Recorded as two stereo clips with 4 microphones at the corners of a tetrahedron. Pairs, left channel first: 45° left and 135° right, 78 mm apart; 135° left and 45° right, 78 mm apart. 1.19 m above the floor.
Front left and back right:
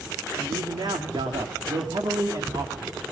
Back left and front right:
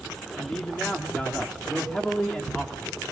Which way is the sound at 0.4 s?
145° right.